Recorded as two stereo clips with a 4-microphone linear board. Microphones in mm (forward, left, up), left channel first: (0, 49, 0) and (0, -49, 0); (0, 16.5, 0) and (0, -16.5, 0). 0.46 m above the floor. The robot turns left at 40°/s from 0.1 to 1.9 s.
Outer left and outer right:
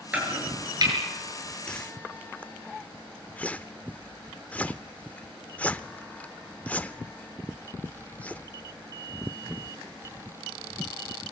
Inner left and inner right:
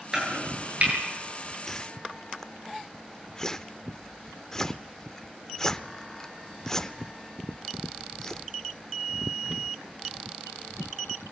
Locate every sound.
0.1 s chopping: 15° right (ahead or behind), 9 m; by 0.9 s 45° right (ahead or behind), 9 m
1.7 s a whoosh: 10° left (ahead or behind), 0.8 m; by 10.0 s 15° left (ahead or behind), 0.8 m